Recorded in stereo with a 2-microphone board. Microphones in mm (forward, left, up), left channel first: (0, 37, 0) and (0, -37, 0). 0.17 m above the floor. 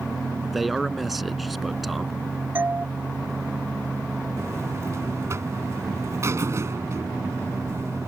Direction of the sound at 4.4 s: 40° right (ahead or behind).